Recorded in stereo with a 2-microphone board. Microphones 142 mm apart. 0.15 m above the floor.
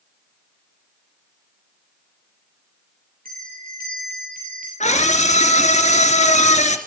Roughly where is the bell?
Right.